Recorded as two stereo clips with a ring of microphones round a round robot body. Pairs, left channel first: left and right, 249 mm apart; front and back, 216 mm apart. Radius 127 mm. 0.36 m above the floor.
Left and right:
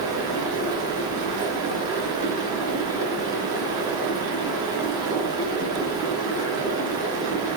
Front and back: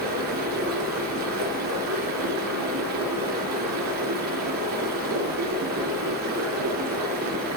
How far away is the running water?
About 3.5 m.